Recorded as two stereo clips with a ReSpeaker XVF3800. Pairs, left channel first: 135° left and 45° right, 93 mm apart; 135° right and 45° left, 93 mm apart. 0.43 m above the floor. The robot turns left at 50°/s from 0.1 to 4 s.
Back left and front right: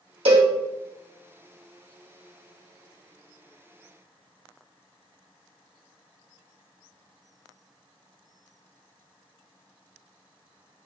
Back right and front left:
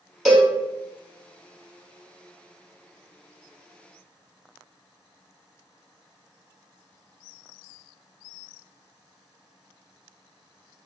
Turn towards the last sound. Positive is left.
turn(degrees=125)